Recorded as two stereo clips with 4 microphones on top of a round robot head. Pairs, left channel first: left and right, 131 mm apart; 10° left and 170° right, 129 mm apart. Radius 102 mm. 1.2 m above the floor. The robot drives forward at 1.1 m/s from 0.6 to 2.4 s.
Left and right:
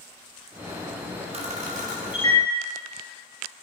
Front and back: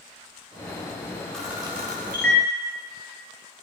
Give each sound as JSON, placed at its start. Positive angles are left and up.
{"t": 1.3, "sound": "a camera shutter", "azimuth_deg": -75, "distance_m": 0.9}